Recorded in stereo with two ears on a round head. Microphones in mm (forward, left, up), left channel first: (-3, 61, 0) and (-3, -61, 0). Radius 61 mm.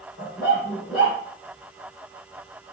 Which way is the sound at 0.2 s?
70° left (ahead or behind).